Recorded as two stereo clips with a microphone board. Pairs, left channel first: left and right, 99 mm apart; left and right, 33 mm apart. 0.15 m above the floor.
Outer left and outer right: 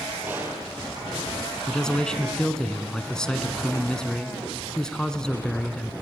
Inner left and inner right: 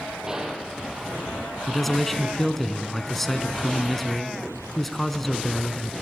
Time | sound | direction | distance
0.3 | a gunshot | 20° right (ahead or behind) | 3.5 m
1.7 | a man speaking | 5° left (ahead or behind) | 1.3 m